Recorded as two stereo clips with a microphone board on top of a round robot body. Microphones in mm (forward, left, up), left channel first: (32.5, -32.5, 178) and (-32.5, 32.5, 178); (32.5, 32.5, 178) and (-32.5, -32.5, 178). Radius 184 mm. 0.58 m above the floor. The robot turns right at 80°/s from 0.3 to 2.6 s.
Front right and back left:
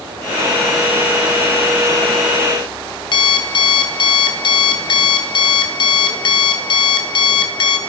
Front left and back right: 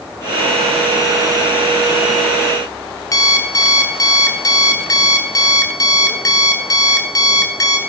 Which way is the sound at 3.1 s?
10° right.